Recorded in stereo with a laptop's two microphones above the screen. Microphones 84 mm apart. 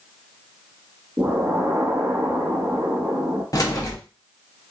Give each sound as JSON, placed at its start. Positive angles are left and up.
{"t": 1.2, "sound": "an explosion", "side_deg": -20, "distance_m": 0.9}
{"t": 3.5, "sound": "keys jangling", "side_deg": 45, "distance_m": 0.6}